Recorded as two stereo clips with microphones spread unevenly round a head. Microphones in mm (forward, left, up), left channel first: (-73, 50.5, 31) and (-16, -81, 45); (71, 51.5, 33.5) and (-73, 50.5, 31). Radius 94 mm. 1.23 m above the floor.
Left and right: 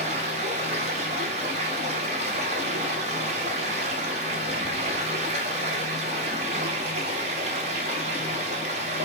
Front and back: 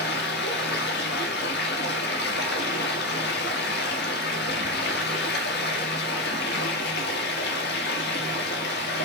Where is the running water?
10° right, 1.2 m.